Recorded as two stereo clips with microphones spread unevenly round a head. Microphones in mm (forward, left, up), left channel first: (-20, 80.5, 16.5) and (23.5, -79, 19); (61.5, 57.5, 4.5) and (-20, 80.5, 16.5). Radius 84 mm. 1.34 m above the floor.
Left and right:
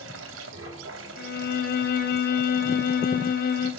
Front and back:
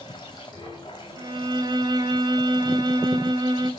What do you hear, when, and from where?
0.0 s running water: 85° right, 3 m
1.2 s a violin: 140° left, 2.5 m